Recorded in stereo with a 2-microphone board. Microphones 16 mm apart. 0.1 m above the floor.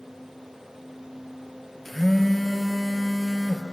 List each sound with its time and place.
1.9 s a phone buzzing: 15° left (ahead or behind), 1.8 m